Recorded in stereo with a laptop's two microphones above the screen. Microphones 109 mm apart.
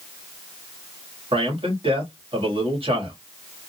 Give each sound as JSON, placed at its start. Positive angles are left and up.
{"t": 1.3, "sound": "a man speaking", "side_deg": -50, "distance_m": 2.0}